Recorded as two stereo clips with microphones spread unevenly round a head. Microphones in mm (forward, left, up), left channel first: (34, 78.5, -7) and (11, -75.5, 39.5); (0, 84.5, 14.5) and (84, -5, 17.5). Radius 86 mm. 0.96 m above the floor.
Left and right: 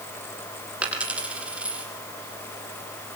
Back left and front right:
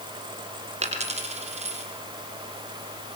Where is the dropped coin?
20° right, 5 m.